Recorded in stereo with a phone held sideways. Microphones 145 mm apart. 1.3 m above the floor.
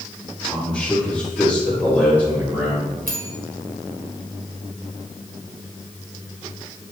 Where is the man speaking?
Centre (ahead or behind), 3.5 m; by 2.9 s 20° right (ahead or behind), 4 m.